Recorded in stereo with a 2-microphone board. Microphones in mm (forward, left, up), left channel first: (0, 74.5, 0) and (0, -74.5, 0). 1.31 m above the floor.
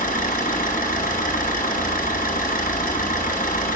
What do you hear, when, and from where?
0.0 s an engine running: 75° left (ahead or behind), 4 m